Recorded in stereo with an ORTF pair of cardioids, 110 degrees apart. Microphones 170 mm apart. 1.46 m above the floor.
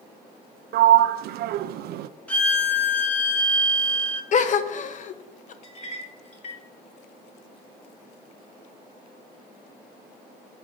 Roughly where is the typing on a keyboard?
I don't hear typing on a keyboard.